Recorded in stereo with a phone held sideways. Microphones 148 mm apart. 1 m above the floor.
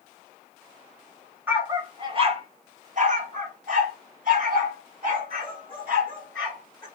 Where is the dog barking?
15° right (ahead or behind), 0.9 m; by 6.9 s 65° right (ahead or behind), 3.5 m.